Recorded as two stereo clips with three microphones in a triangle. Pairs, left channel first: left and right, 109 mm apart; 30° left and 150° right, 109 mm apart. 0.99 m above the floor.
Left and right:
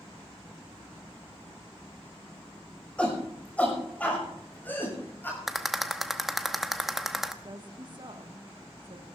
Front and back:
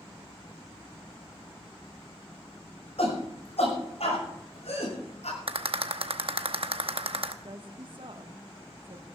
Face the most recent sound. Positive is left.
turn(degrees=-125)